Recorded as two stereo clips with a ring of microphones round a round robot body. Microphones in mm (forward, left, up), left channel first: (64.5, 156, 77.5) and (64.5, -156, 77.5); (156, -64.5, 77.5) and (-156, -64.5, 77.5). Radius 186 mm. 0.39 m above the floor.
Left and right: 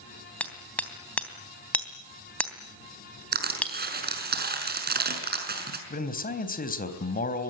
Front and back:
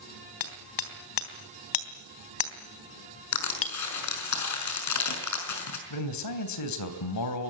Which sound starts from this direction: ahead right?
Crushing, at 3.3 s.